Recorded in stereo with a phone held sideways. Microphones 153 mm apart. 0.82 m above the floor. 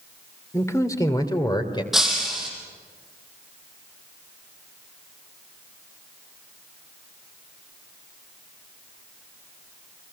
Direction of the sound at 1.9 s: 5° right (ahead or behind).